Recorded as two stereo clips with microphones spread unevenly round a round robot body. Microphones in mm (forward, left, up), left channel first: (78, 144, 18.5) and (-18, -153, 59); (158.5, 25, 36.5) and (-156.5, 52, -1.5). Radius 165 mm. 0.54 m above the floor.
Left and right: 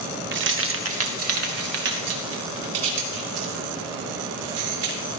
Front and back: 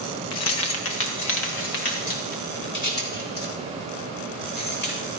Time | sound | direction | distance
0.3 | keys jangling | 50° right | 0.8 m